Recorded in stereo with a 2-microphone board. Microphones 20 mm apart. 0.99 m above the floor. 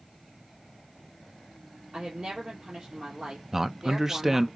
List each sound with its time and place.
1.9 s a woman speaking: 65° right (ahead or behind), 2.5 m
3.5 s a man speaking: 20° right (ahead or behind), 0.6 m